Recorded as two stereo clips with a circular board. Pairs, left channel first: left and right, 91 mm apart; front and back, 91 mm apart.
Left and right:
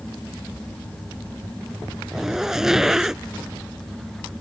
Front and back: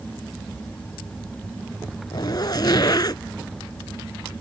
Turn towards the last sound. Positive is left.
turn(degrees=-5)